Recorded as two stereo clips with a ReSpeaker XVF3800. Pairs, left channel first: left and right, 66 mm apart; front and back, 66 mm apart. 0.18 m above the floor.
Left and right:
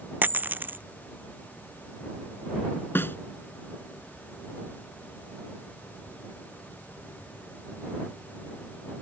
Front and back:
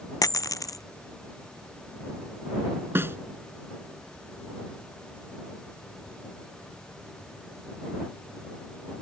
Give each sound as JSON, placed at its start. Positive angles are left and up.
{"t": 0.2, "sound": "a dropped coin", "azimuth_deg": -30}
{"t": 3.0, "sound": "a snare drum", "azimuth_deg": 135}